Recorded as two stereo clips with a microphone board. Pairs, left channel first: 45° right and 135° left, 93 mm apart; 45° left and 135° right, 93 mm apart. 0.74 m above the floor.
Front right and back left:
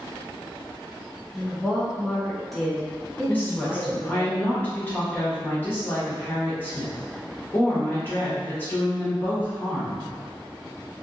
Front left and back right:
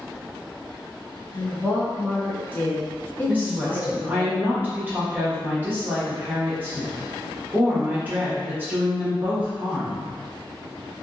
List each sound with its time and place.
1.3 s a woman speaking: 45° left, 0.8 m
3.3 s a woman speaking: 90° right, 1.0 m